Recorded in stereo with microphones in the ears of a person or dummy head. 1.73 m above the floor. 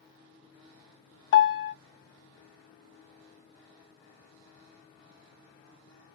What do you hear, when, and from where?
1.3 s a piano: 70° left (ahead or behind), 0.6 m